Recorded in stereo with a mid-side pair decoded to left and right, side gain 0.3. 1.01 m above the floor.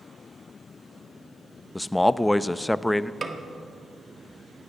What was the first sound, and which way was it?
A man speaking, 15° left.